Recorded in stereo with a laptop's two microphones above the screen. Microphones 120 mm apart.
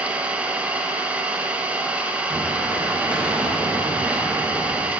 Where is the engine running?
10° right (ahead or behind), 0.8 m.